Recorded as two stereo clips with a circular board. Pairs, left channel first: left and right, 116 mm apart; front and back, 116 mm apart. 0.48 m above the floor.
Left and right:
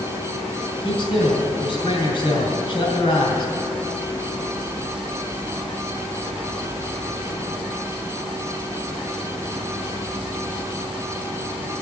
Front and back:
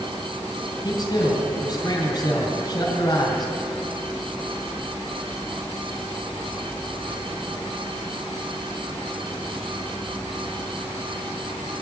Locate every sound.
0.8 s a man speaking: 50° left, 3.5 m